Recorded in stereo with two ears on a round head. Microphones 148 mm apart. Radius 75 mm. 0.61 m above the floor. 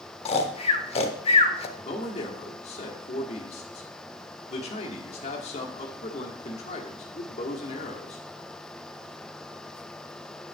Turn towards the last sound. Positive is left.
turn(degrees=40)  # may be behind; listen again after turning